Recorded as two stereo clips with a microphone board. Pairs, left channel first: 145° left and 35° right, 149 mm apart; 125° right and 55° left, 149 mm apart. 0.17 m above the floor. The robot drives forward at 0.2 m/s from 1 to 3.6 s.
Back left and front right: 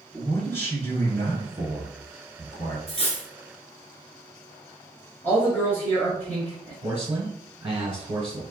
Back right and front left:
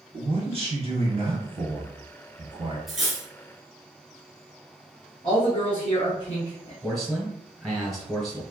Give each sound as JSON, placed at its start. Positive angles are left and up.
{"t": 0.1, "sound": "a man speaking", "azimuth_deg": 75, "distance_m": 1.6}
{"t": 2.9, "sound": "cutlery clinking", "azimuth_deg": 145, "distance_m": 1.0}
{"t": 5.2, "sound": "a man speaking", "azimuth_deg": -145, "distance_m": 1.2}
{"t": 6.8, "sound": "a man speaking", "azimuth_deg": -40, "distance_m": 1.1}